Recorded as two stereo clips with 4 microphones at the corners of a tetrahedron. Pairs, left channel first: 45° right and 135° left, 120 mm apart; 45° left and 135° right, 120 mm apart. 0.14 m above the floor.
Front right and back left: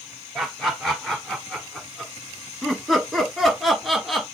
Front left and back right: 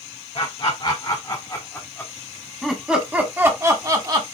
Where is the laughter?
45° left, 2 m; by 4.2 s 135° right, 1.8 m.